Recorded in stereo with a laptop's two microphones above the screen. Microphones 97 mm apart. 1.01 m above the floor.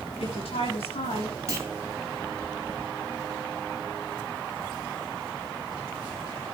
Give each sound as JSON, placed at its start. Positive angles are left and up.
{"t": 0.2, "sound": "a woman speaking", "side_deg": 80, "distance_m": 9.5}
{"t": 1.5, "sound": "a clunk", "side_deg": -30, "distance_m": 3.0}